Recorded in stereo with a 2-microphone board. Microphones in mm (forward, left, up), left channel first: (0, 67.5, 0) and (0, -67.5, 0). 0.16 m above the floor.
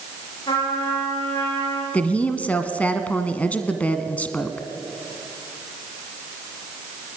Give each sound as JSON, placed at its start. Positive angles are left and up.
{"t": 0.5, "sound": "a trumpet", "side_deg": 40, "distance_m": 10.0}
{"t": 1.9, "sound": "a woman speaking", "side_deg": 10, "distance_m": 1.4}